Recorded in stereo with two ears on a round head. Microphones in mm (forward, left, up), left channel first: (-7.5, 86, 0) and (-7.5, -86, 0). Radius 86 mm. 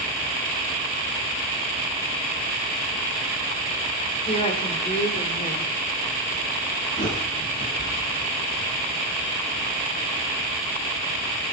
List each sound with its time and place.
4.3 s a woman speaking: 30° left (ahead or behind), 3 m
7.0 s a bird: 45° left (ahead or behind), 9.5 m